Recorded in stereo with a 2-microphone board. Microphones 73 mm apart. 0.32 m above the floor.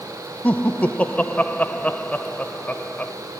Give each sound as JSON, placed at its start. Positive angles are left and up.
{"t": 0.4, "sound": "laughter", "side_deg": 20, "distance_m": 0.9}